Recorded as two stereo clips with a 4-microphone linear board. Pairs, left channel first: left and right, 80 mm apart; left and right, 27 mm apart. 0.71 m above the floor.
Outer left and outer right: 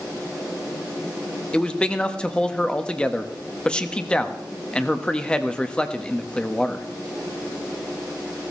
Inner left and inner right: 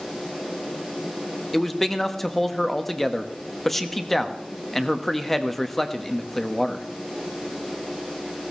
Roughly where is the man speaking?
Centre.